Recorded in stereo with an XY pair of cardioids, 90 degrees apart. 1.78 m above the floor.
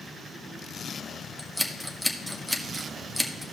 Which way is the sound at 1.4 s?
Straight ahead.